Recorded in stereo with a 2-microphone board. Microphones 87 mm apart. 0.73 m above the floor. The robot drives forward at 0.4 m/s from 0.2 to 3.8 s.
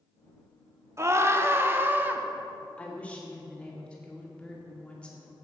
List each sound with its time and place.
1.0 s a scream: 35° right (ahead or behind), 0.7 m; by 2.2 s 20° right (ahead or behind), 1.1 m
2.8 s a woman speaking: 15° left (ahead or behind), 1.7 m